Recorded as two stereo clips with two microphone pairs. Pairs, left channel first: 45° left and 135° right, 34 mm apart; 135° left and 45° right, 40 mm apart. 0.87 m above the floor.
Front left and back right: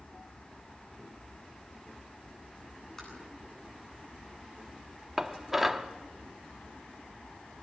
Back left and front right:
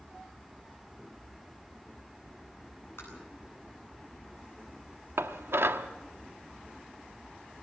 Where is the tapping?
120° left, 9.5 m.